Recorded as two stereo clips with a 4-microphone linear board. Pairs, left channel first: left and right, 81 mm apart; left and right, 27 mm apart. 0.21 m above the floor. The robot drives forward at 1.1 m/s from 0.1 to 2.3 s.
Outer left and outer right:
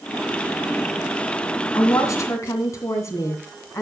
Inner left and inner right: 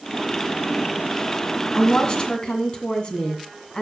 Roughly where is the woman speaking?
Left.